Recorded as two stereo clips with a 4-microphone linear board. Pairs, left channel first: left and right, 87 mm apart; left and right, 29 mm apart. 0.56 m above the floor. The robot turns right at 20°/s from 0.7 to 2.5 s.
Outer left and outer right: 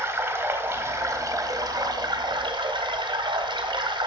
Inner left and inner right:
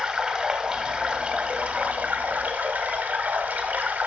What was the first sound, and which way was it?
Running water, 155° right.